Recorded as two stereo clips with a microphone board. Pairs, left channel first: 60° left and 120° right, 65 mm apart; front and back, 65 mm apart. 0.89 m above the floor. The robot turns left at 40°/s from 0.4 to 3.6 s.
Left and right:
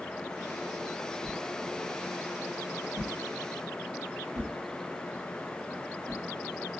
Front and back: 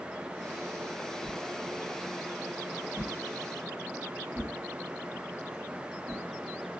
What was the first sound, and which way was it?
A whoosh, 40° right.